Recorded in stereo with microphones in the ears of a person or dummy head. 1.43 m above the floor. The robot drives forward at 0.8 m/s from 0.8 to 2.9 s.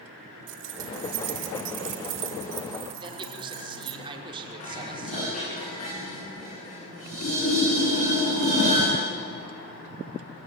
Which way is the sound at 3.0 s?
30° right (ahead or behind).